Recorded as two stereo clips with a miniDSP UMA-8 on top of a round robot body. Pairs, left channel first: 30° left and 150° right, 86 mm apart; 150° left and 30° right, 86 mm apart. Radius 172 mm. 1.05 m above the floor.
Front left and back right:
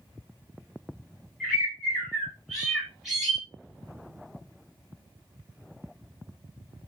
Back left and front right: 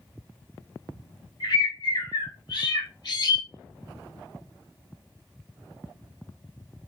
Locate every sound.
1.4 s a bird: 125° left, 3.5 m